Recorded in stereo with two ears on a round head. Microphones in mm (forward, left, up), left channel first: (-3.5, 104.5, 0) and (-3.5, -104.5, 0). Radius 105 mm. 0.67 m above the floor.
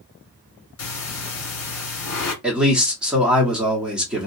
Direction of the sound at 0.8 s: 65° left (ahead or behind).